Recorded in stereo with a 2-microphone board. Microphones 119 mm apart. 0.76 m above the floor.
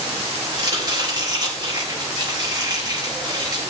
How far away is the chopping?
About 6.5 m.